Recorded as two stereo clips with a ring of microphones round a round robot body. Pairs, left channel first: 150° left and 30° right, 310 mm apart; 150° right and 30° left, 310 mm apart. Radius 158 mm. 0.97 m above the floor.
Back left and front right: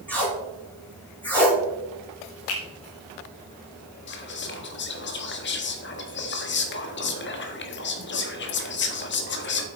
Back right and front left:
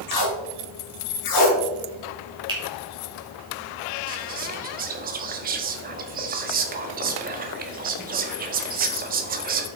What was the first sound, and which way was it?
Tape being pulled, 125° right.